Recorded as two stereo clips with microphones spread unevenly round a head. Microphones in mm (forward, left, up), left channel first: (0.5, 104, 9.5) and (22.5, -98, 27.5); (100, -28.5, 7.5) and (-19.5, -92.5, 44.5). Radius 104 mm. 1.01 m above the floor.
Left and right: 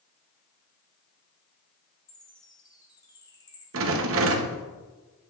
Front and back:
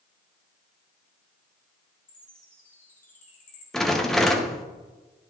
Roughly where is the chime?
Ahead left.